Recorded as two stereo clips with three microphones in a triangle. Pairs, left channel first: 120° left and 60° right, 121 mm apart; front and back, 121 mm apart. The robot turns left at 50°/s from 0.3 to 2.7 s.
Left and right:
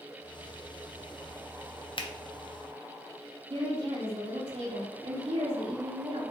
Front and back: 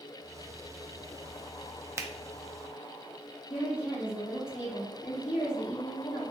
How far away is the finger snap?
About 0.6 m.